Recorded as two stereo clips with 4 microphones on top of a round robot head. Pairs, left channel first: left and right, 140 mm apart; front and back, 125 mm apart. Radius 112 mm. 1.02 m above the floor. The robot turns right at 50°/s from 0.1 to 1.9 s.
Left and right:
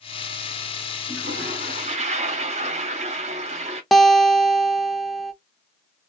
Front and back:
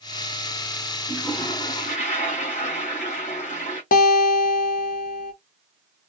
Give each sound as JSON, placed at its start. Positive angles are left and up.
{"t": 1.1, "sound": "a toilet flushing", "azimuth_deg": -95, "distance_m": 1.2}
{"t": 3.9, "sound": "a guitar", "azimuth_deg": 0, "distance_m": 0.6}